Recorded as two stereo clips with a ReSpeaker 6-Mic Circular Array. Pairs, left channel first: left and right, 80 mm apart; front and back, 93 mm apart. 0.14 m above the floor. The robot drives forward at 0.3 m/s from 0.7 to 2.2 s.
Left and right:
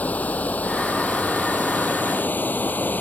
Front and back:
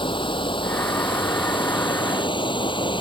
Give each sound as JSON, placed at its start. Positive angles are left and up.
{"t": 0.0, "sound": "running water", "azimuth_deg": 20}